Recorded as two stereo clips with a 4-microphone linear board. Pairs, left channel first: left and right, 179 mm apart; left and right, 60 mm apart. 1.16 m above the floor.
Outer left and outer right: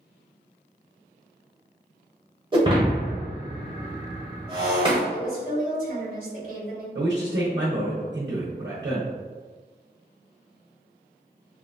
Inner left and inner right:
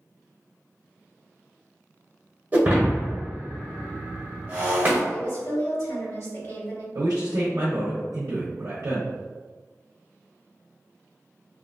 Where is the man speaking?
75° right (ahead or behind), 0.6 m.